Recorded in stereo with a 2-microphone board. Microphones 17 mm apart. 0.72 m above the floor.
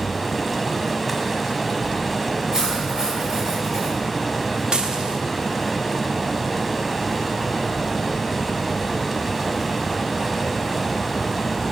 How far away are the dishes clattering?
About 1.1 m.